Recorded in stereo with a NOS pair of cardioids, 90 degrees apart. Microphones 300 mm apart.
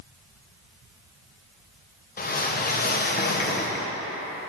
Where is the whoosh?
30° left, 1.0 m.